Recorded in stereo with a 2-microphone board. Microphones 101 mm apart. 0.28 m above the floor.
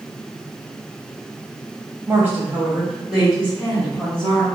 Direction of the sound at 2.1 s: 20° right (ahead or behind).